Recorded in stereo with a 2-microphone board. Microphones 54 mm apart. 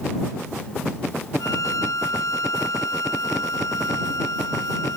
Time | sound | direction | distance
1.4 | a violin | 80° left | ?